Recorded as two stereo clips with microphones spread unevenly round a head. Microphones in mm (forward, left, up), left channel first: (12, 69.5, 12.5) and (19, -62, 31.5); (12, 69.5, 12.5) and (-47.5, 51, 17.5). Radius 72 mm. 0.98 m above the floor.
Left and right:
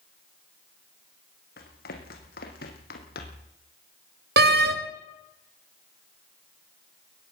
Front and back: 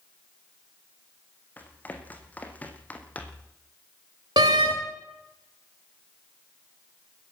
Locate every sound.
1.6 s running footsteps: 80° left, 4 m; by 3.5 s 85° left, 3 m
4.4 s a door slam: 105° right, 1.8 m